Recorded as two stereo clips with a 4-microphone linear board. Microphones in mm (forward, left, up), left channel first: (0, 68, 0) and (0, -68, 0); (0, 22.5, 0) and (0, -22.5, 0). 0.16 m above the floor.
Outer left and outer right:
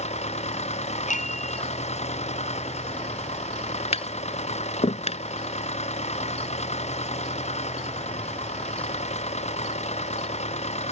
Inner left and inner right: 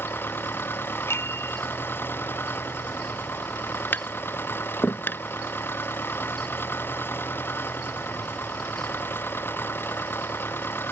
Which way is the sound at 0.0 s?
55° left (ahead or behind).